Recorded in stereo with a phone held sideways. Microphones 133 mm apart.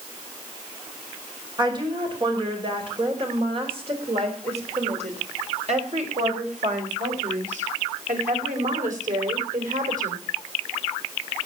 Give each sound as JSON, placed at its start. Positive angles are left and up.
{"t": 1.6, "sound": "a woman speaking", "side_deg": -35, "distance_m": 5.0}